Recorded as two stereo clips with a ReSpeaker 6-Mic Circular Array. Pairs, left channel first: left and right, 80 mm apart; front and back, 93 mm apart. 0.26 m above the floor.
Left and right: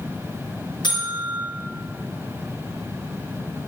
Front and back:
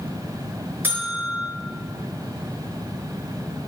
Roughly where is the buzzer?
Behind left.